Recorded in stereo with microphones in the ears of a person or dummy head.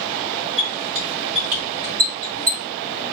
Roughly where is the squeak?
Right.